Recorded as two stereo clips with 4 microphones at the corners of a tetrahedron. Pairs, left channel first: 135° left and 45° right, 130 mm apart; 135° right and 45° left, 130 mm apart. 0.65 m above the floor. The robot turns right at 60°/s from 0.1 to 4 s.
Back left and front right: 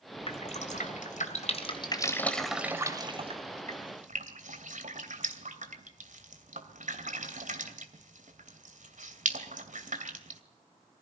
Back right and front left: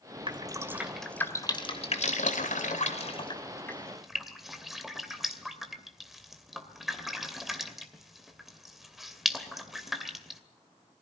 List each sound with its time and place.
0.3 s dripping: 90° left, 2.5 m; by 10.4 s 45° right, 2.5 m